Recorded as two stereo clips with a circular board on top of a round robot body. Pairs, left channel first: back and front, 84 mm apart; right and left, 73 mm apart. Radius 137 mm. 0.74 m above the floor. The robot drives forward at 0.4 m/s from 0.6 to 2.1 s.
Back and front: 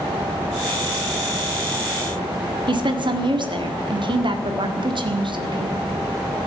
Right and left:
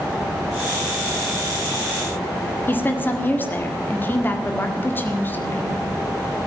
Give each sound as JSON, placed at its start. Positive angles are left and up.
{"t": 2.7, "sound": "a woman speaking", "azimuth_deg": -25, "distance_m": 1.9}